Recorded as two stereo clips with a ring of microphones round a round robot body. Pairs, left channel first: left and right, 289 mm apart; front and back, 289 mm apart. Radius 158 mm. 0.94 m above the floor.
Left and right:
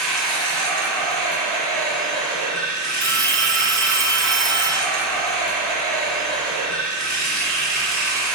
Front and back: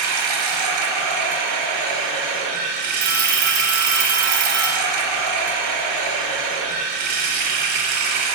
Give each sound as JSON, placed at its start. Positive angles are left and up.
{"t": 0.0, "sound": "running water", "azimuth_deg": 180, "distance_m": 0.9}
{"t": 3.0, "sound": "a phone ringing", "azimuth_deg": -150, "distance_m": 0.9}